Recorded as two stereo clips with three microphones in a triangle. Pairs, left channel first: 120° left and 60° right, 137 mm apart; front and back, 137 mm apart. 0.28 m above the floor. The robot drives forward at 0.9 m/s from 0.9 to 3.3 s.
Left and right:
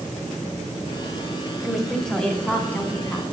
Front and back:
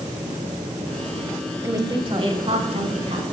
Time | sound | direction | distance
1.6 | a woman speaking | 135° right | 1.0 m